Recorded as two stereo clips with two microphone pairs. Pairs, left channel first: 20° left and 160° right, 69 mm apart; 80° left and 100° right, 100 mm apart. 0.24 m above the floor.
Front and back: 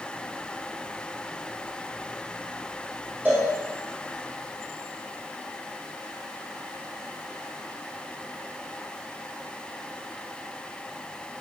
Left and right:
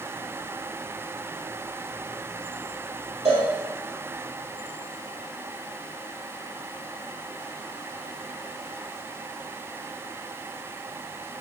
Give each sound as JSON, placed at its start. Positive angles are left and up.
{"t": 3.2, "sound": "a cowbell", "azimuth_deg": -100, "distance_m": 0.9}